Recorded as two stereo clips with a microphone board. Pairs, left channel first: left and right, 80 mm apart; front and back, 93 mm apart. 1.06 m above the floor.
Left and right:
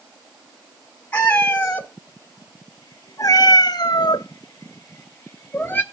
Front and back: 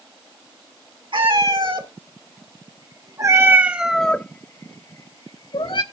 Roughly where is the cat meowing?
Behind.